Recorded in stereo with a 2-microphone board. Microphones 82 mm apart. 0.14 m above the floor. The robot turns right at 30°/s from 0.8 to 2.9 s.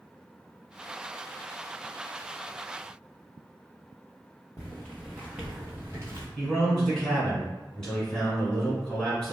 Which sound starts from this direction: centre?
A man speaking, at 6.4 s.